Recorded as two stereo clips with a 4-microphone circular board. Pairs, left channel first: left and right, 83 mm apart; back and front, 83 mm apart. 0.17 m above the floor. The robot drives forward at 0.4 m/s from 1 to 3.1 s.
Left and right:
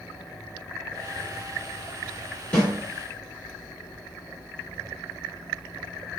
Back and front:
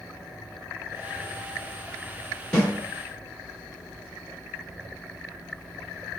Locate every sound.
2.5 s a snare drum: 130° left, 1.7 m; by 2.7 s 135° left, 1.7 m